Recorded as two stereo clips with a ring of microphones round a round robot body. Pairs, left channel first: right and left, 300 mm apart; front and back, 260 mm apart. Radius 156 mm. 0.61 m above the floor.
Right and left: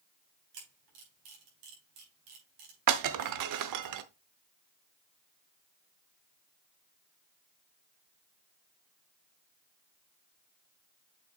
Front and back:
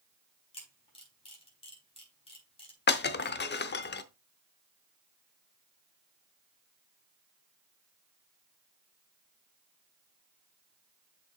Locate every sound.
0.5 s a camera shutter: 70° left, 4.5 m
2.9 s breaking glass: 55° left, 0.8 m